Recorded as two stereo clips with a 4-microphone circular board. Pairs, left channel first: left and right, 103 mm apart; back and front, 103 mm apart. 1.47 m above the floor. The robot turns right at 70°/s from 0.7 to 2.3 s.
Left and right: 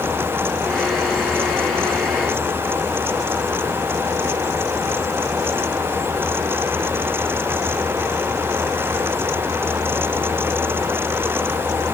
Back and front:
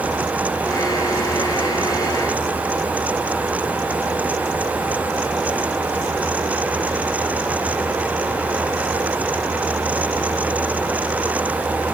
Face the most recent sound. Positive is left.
No sound to turn to.